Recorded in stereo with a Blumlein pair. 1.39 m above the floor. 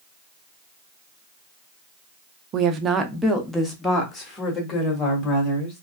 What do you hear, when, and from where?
2.5 s a woman speaking: 35° right, 0.7 m; by 5.8 s 20° left, 2.5 m